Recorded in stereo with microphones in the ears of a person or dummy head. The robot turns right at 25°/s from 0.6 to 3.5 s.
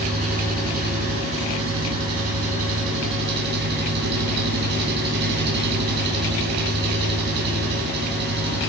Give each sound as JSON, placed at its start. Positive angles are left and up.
{"t": 0.0, "sound": "an engine running", "azimuth_deg": -135, "distance_m": 8.0}